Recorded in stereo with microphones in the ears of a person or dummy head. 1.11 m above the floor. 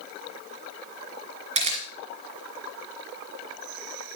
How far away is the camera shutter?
About 2.5 m.